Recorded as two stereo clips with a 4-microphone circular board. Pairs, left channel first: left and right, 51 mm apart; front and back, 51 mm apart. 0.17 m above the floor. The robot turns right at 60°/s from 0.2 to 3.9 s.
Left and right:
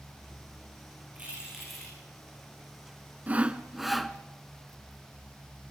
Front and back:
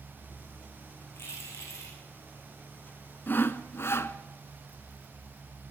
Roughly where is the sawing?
Ahead right.